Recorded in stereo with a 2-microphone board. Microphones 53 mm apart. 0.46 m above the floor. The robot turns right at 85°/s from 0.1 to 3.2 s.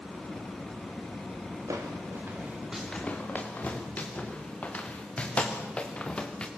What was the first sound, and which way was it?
Footsteps, 85° right.